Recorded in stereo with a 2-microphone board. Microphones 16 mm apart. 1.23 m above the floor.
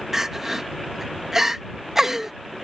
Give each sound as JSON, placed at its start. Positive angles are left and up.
{"t": 0.1, "sound": "crying", "side_deg": -30}